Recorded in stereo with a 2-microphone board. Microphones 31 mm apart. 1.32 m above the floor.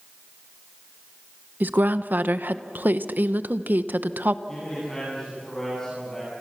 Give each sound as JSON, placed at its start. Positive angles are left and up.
{"t": 1.6, "sound": "a woman speaking", "side_deg": -70, "distance_m": 1.0}
{"t": 4.5, "sound": "a man speaking", "side_deg": 15, "distance_m": 10.0}